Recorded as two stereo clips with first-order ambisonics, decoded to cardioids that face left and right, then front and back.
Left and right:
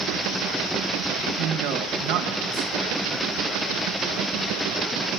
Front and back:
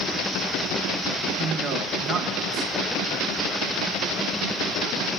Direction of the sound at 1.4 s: 115° right.